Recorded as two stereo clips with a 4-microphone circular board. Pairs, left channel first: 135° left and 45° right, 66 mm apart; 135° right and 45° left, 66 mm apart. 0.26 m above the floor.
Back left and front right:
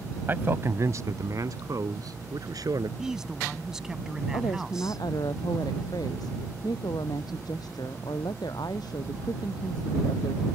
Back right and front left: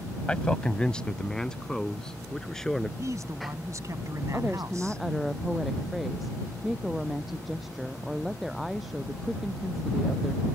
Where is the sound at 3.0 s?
35° left.